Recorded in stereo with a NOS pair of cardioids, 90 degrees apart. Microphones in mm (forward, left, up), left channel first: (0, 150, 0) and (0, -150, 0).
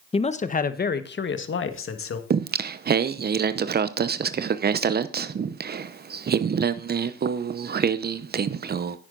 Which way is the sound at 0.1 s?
20° left.